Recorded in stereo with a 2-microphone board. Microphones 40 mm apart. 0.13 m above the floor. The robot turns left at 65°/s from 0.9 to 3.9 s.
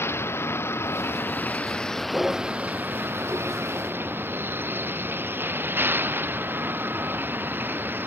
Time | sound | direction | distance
0.0 | a vehicle | 85° left | ?